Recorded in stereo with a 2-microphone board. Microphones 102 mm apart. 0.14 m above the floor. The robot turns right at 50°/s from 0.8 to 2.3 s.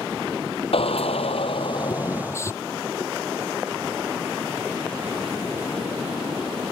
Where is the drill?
75° left; by 2.5 s 150° left.